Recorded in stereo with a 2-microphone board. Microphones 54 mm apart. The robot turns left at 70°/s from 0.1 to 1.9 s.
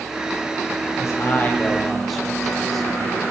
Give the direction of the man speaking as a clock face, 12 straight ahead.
10 o'clock.